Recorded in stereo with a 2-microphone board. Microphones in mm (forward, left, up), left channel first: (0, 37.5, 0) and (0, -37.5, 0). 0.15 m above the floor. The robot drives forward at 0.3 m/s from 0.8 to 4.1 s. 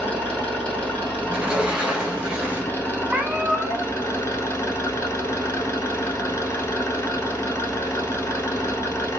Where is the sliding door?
15° right (ahead or behind), 0.7 m; by 2.8 s 10° right (ahead or behind), 1.0 m.